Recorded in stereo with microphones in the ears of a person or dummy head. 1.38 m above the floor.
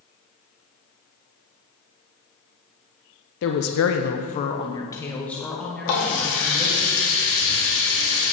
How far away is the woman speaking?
About 0.6 m.